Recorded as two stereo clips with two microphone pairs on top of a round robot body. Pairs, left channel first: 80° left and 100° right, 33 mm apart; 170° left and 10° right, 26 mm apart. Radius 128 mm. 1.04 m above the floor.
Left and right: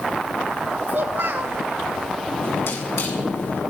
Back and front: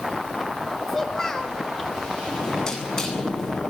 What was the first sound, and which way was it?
A child speaking, 120° right.